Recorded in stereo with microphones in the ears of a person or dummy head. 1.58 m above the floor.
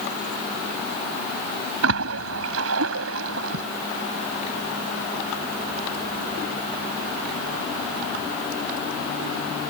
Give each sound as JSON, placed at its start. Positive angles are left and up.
{"t": 1.8, "sound": "a splash", "side_deg": -70}